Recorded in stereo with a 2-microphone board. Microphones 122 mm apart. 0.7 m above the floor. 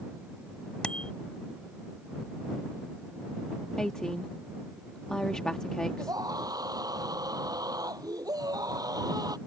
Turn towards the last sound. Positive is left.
turn(degrees=-30)  # may be behind; listen again after turning